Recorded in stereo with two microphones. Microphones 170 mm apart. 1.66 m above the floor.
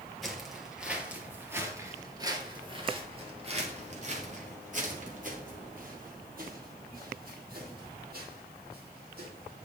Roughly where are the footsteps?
Centre.